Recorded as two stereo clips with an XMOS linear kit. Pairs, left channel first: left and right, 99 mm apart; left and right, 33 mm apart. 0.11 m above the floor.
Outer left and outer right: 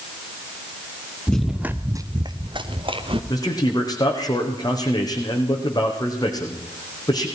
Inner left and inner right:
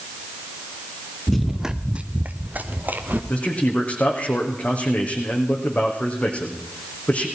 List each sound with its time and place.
1.3 s running footsteps: 10° left (ahead or behind), 1.1 m; by 3.2 s 65° right (ahead or behind), 2.5 m
3.3 s a man speaking: 40° left (ahead or behind), 5 m